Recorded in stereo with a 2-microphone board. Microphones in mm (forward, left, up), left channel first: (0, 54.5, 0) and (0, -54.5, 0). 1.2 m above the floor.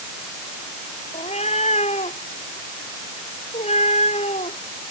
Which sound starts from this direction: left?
A cat meowing, at 1.1 s.